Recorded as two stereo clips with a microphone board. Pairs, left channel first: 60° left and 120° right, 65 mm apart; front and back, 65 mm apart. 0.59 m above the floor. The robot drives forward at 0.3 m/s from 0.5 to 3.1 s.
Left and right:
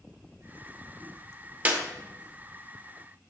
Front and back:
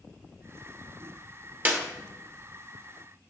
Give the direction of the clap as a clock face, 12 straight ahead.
5 o'clock.